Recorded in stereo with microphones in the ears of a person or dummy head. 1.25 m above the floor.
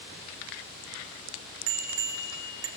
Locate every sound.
1.7 s a bicycle bell: 75° right (ahead or behind), 3 m